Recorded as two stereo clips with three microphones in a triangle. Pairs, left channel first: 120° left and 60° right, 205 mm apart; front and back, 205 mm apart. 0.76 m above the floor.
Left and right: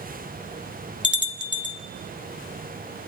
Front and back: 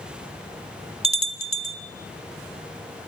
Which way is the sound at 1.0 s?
125° left.